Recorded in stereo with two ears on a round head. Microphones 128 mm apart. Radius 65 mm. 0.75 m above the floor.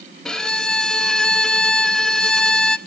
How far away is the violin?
About 0.6 m.